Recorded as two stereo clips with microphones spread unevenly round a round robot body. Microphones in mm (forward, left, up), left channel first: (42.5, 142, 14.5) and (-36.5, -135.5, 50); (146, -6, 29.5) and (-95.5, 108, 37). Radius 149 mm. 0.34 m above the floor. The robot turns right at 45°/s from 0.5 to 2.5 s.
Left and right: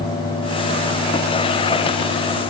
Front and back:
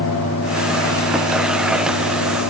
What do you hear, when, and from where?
Only background noise.